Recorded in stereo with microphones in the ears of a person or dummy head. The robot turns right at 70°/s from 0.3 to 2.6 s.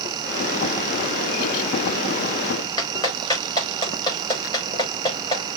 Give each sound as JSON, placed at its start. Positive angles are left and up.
{"t": 2.8, "sound": "a clap", "side_deg": 25, "distance_m": 5.0}